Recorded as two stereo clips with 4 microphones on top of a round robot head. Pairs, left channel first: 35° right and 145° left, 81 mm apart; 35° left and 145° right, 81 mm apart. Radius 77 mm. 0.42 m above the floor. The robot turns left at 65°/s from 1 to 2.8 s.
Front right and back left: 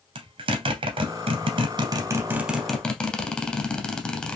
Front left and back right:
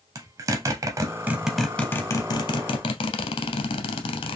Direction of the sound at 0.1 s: 160° left.